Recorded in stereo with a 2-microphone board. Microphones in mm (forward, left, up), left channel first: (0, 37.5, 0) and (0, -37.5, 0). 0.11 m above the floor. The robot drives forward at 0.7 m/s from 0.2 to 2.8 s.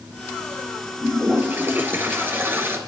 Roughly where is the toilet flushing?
Right.